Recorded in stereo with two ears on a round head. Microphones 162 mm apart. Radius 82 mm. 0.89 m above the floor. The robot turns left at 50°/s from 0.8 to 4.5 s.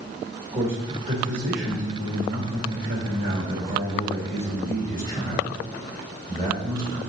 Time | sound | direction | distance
0.5 | a man speaking | 20° right | 2.5 m